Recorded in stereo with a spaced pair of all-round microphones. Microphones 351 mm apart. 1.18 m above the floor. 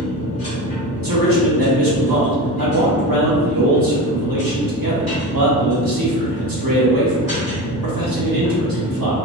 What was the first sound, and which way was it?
A machine running, 80° right.